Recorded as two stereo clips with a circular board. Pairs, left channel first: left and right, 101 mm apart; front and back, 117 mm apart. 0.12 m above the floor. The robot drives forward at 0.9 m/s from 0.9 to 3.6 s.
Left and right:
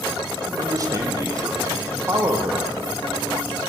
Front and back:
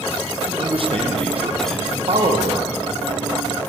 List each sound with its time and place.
0.5 s a man speaking: 145° right, 4 m; by 2.7 s 155° right, 5.5 m